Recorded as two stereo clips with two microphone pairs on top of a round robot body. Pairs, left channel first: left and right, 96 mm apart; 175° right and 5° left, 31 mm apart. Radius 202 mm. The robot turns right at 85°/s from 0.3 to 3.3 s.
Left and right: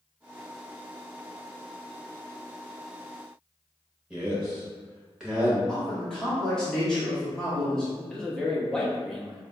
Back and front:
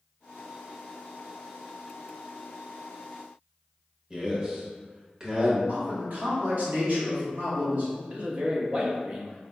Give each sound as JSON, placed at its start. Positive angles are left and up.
{"t": 4.1, "sound": "a man speaking", "azimuth_deg": -45, "distance_m": 1.4}
{"t": 5.7, "sound": "a man speaking", "azimuth_deg": 0, "distance_m": 1.6}
{"t": 8.1, "sound": "a man speaking", "azimuth_deg": -5, "distance_m": 1.4}